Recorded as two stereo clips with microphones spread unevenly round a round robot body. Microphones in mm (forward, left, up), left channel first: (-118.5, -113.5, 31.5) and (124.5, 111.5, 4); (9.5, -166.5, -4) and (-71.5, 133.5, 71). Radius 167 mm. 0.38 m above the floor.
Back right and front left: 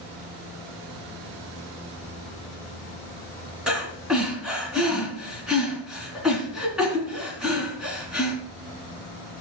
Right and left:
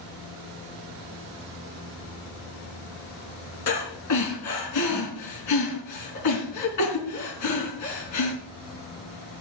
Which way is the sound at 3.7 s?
45° right.